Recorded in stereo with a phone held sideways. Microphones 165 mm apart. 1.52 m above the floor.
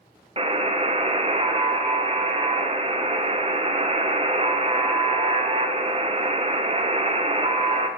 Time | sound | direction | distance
0.4 | a buzzer | 35° right (ahead or behind) | 0.6 m